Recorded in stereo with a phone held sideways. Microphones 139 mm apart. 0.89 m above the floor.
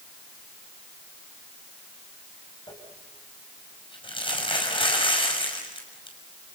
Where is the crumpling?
40° left (ahead or behind), 6 m.